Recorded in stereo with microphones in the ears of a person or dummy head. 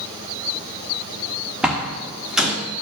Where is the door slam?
5° right (ahead or behind), 0.9 m.